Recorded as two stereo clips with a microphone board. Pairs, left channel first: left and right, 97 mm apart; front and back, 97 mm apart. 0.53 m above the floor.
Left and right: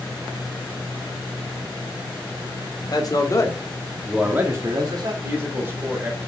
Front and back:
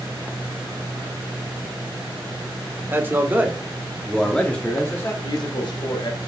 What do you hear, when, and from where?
2.9 s a man speaking: 120° left, 1.6 m; by 5.1 s 65° right, 1.6 m
5.2 s a woman speaking: 25° right, 1.9 m